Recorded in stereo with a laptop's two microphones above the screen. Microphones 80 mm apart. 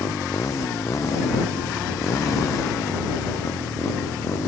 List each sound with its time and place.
0.0 s a motorcycle: 40° left (ahead or behind)